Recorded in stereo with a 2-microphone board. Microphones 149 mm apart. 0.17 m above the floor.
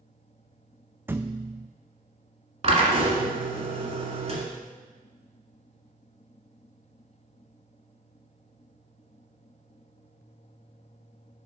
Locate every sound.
1.1 s a thud: 15° right (ahead or behind), 0.5 m
2.6 s a drill: 45° right (ahead or behind), 1.7 m